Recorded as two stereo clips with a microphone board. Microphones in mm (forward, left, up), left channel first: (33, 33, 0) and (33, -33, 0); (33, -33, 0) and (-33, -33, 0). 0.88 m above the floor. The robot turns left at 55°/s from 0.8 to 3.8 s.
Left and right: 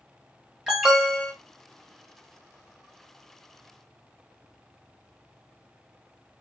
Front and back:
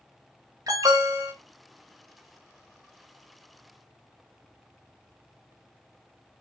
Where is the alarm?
170° right, 3 m; by 1.3 s 160° left, 3 m.